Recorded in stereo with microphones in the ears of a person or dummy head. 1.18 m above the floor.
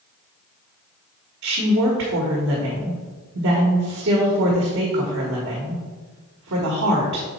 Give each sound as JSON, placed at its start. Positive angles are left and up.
{"t": 1.4, "sound": "a woman speaking", "side_deg": -55, "distance_m": 1.4}